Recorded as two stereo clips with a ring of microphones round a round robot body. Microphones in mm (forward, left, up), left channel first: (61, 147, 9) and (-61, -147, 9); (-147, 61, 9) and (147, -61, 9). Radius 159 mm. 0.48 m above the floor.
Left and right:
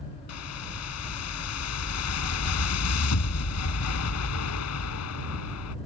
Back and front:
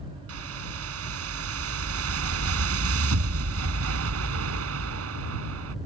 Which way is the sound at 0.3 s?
25° left.